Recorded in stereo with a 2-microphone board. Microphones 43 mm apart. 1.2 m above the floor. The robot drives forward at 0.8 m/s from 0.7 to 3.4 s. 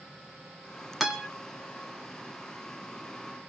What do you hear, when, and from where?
1.0 s a guitar: 5° right (ahead or behind), 1.8 m